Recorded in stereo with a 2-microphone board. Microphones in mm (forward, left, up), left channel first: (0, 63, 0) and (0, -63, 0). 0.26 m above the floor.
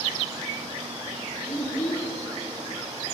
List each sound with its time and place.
1.5 s a child speaking: 30° left (ahead or behind), 4 m